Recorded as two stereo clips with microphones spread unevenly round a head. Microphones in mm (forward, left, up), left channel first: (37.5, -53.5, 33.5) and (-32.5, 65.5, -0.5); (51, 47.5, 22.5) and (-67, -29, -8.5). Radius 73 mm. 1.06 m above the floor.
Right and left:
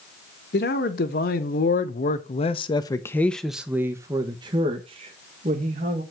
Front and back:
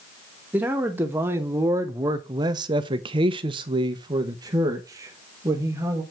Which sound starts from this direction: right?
A man speaking, at 0.5 s.